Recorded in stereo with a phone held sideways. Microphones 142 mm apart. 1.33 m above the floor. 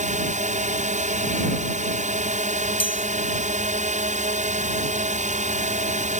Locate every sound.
0.0 s a drone: 60° right (ahead or behind)
2.8 s a chime: 35° left (ahead or behind)